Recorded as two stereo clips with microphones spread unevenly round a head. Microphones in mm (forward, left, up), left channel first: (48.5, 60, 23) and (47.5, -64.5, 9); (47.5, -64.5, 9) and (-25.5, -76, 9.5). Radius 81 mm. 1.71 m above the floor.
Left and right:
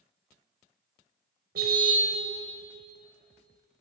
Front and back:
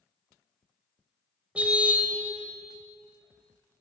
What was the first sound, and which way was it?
A car horn, 100° right.